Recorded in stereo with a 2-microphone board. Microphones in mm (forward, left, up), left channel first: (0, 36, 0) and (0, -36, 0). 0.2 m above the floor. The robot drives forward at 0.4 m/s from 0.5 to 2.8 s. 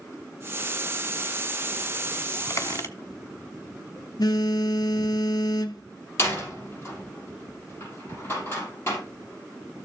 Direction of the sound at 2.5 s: 50° left (ahead or behind).